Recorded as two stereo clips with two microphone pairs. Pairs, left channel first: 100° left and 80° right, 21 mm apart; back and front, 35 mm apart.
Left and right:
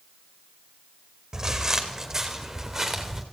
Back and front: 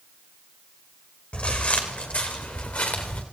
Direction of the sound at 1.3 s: 140° right.